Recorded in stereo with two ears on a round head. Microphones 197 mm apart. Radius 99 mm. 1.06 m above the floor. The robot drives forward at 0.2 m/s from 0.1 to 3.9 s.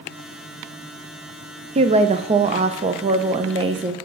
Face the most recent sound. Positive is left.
turn(degrees=-20)  # may be behind; listen again after turning